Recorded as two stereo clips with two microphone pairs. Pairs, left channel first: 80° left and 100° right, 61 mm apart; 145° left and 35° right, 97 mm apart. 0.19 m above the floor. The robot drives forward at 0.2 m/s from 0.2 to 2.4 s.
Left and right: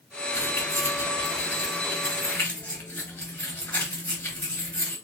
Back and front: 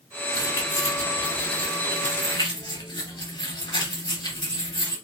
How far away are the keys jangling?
About 1.5 m.